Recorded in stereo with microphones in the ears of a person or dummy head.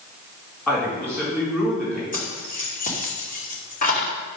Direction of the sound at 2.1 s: 40° left (ahead or behind).